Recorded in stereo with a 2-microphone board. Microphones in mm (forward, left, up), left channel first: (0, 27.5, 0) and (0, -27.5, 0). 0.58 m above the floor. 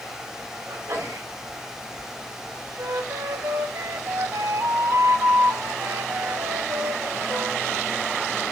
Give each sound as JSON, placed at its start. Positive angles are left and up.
{"t": 0.7, "sound": "a sneeze", "side_deg": -75, "distance_m": 4.5}
{"t": 2.8, "sound": "a flute", "side_deg": -75, "distance_m": 0.7}